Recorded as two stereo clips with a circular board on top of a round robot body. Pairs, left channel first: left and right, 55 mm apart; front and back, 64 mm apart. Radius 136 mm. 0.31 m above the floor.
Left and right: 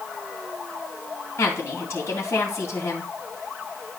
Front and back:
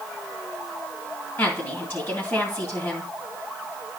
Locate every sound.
1.4 s a woman speaking: 55° left, 3.5 m